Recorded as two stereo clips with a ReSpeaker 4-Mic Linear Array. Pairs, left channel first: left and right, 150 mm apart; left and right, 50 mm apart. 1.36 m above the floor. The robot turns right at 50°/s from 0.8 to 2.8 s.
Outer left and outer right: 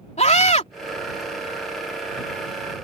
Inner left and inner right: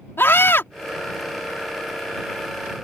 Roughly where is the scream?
Left.